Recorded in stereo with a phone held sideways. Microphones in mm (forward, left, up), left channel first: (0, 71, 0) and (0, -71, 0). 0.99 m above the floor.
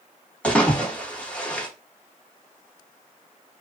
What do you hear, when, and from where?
0.4 s a splash: 10° left (ahead or behind), 1.2 m